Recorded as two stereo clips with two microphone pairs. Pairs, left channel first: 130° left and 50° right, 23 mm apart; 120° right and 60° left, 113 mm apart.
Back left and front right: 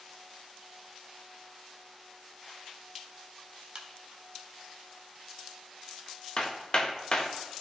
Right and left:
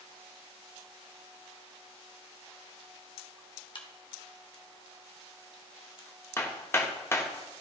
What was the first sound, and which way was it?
A crack, 90° right.